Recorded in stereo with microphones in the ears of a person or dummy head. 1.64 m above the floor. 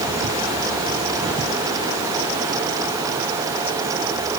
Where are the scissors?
I don't hear scissors.